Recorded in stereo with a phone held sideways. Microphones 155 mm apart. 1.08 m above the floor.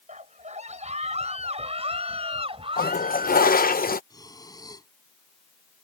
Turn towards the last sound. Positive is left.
turn(degrees=25)  # may be behind; listen again after turning